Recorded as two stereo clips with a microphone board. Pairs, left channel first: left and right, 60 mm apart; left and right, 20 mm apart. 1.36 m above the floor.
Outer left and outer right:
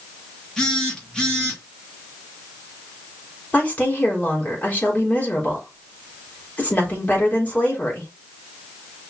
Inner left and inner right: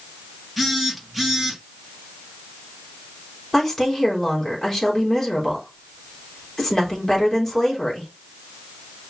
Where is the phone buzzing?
10° left (ahead or behind), 2.5 m.